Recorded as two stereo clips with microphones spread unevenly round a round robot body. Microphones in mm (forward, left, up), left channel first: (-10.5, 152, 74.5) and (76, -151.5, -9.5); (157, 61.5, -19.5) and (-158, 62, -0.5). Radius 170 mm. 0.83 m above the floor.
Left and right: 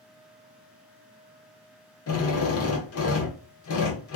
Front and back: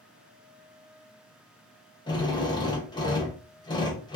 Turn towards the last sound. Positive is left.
turn(degrees=65)